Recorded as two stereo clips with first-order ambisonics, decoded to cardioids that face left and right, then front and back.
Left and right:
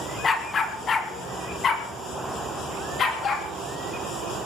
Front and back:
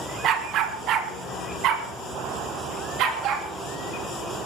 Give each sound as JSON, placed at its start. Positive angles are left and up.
{"t": 0.2, "sound": "a dog barking", "azimuth_deg": 155, "distance_m": 1.6}